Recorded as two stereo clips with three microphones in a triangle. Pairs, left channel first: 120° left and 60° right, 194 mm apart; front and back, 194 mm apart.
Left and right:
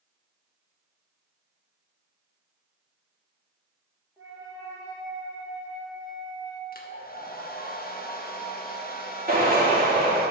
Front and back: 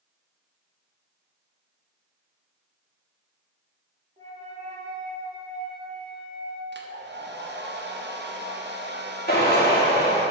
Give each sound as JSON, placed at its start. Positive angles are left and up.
{"t": 4.2, "sound": "a flute", "azimuth_deg": -130, "distance_m": 2.0}
{"t": 6.7, "sound": "a hair dryer", "azimuth_deg": 155, "distance_m": 0.8}
{"t": 9.3, "sound": "a drill", "azimuth_deg": -25, "distance_m": 2.0}